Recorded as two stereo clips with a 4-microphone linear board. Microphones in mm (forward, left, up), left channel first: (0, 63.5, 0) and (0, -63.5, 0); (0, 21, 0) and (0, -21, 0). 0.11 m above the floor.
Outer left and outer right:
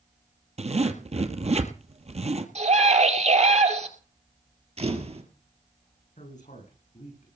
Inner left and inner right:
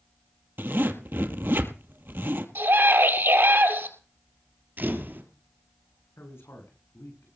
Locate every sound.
0.6 s a zipper: 60° right (ahead or behind), 1.5 m
2.5 s a scream: 60° right (ahead or behind), 2.5 m
4.8 s a camera shutter: 55° right (ahead or behind), 2.5 m
6.2 s a man speaking: 75° left (ahead or behind), 8 m